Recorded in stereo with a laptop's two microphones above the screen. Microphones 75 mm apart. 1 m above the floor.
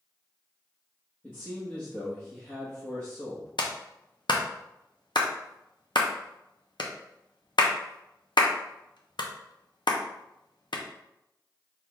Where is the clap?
80° left, 0.6 m.